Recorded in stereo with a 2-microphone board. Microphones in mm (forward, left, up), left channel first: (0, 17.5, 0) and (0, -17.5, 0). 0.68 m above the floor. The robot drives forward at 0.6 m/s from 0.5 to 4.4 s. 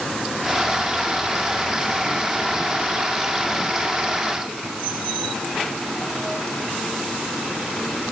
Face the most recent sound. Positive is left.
No sound to turn to.